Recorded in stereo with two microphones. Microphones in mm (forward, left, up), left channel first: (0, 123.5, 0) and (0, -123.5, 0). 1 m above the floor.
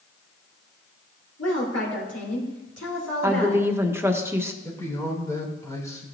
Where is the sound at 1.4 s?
80° left, 4 m.